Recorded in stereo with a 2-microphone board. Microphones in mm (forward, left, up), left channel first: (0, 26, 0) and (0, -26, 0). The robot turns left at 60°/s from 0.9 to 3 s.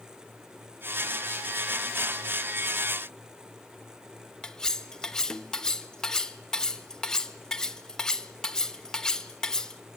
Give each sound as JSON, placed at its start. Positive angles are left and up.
{"t": 4.4, "sound": "cutlery clinking", "side_deg": 10, "distance_m": 0.9}